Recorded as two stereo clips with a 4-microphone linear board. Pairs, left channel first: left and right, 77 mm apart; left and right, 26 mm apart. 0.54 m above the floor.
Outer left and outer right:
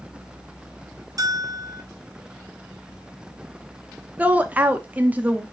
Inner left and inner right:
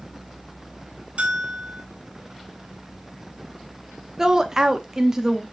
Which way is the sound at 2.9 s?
60° left (ahead or behind).